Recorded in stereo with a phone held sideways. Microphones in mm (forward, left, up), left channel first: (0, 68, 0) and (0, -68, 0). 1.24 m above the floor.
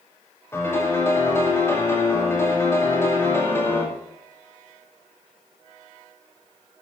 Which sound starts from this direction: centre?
A piano, at 0.5 s.